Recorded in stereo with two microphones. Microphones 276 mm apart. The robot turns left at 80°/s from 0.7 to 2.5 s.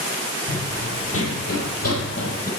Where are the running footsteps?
30° left (ahead or behind), 2 m.